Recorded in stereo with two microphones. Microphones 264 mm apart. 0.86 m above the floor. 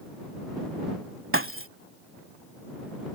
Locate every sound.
1.3 s breaking glass: 50° right (ahead or behind)